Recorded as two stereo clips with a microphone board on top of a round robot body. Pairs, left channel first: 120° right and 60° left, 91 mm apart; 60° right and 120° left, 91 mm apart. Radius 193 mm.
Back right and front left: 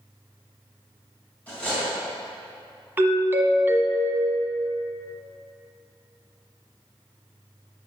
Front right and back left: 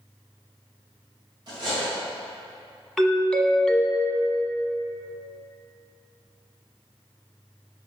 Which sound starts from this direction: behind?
Cutlery clinking, at 1.5 s.